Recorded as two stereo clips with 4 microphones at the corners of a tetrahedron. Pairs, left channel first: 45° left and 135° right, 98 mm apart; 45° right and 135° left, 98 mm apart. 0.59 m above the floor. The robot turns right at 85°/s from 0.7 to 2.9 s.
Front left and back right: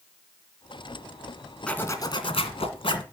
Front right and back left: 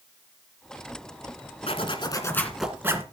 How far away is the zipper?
About 1.9 m.